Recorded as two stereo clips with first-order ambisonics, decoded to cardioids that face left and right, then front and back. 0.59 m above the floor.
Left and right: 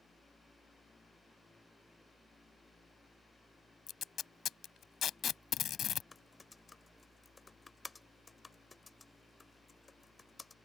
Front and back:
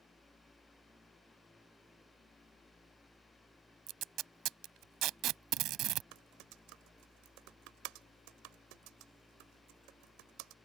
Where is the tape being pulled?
145° left.